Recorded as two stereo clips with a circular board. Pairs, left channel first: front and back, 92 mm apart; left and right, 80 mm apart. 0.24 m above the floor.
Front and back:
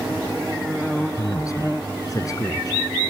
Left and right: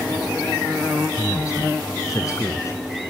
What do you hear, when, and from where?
1.2 s a man speaking: 45° left